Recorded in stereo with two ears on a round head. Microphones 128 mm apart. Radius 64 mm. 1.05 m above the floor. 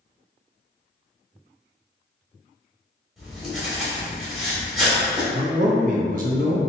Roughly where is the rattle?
No rattle in this recording.